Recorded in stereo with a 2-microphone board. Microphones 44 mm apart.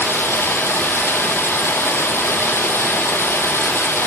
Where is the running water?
75° left (ahead or behind), 3 m.